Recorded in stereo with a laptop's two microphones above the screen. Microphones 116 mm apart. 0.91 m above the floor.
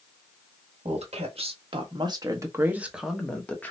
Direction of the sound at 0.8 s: 65° right (ahead or behind).